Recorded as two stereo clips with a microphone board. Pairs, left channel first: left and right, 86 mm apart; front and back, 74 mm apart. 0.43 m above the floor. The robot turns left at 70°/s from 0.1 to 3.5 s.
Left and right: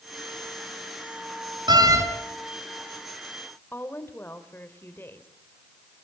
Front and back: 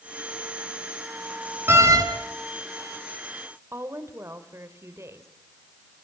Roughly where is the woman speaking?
Behind left.